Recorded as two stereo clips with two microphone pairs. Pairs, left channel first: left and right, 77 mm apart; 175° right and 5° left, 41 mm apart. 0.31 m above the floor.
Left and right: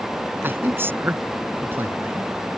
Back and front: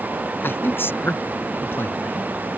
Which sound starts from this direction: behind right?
A man speaking, at 0.4 s.